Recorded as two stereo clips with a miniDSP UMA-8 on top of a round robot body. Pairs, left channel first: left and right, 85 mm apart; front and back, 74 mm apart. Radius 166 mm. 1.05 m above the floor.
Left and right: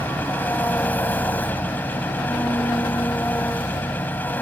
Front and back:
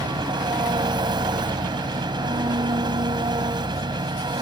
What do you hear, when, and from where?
0.0 s an engine running: 160° left